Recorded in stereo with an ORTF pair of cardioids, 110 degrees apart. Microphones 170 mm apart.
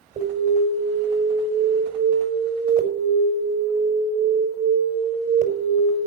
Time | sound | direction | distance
0.2 | an alarm | 55° right | 5 m